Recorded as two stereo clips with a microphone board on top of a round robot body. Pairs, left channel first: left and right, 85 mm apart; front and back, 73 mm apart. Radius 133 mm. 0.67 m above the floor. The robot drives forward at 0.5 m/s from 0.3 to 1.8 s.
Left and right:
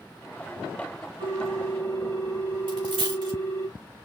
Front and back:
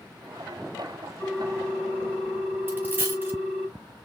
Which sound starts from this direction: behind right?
A dropped coin, at 2.7 s.